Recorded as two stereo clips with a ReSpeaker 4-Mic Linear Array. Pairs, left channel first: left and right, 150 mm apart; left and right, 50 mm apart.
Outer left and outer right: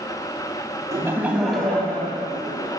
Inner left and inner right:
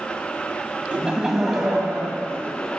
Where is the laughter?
20° right (ahead or behind), 1.0 m; by 2.8 s 30° left (ahead or behind), 1.6 m.